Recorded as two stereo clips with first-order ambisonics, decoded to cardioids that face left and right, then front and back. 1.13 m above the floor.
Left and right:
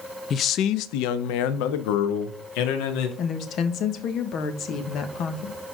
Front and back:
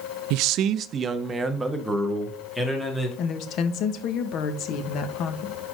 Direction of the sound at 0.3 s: 155° left.